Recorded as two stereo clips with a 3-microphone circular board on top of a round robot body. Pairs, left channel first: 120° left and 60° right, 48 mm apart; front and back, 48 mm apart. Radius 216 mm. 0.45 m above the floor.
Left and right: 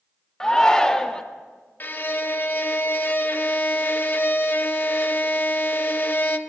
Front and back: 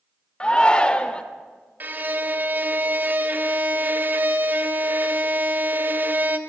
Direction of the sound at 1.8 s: 150° left.